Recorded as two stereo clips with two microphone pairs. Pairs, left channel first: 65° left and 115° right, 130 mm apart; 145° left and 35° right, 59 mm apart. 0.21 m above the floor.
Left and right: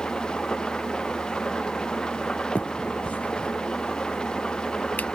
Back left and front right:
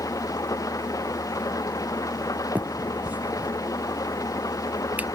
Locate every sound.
0.0 s an engine running: 150° left
2.5 s a finger snap: 5° right